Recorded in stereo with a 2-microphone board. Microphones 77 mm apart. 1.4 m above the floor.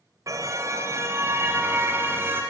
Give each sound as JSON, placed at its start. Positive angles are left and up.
{"t": 0.3, "sound": "a car horn", "side_deg": -45, "distance_m": 2.5}